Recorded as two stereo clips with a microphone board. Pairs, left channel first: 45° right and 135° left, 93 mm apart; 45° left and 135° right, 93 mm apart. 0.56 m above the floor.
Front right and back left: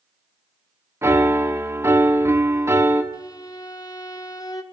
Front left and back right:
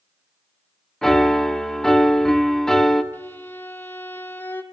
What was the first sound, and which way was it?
A piano, 125° left.